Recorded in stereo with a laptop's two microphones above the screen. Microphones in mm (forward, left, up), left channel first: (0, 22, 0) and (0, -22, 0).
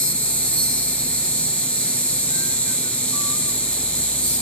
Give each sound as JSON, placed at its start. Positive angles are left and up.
{"t": 0.0, "sound": "an insect", "side_deg": 30, "distance_m": 1.1}